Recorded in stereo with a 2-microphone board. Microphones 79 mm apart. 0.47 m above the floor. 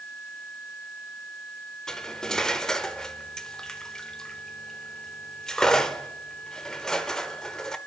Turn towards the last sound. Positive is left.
turn(degrees=10)  # may be behind; listen again after turning